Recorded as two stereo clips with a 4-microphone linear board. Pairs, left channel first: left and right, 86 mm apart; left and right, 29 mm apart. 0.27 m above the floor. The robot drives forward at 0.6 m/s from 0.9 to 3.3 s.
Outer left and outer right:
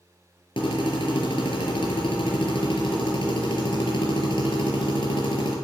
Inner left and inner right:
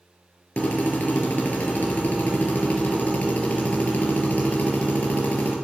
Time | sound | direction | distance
0.6 | a drill | 80° left | 4 m